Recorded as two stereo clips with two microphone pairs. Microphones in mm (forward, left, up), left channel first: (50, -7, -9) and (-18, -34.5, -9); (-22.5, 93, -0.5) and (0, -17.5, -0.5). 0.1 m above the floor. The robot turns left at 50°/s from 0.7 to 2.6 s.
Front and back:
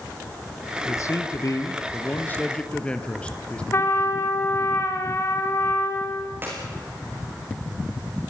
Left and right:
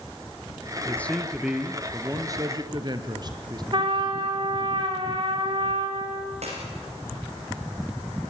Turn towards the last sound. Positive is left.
turn(degrees=-95)